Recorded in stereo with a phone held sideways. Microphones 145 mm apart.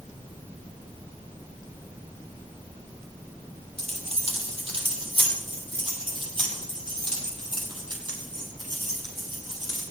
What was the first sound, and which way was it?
Keys jangling, 50° right (ahead or behind).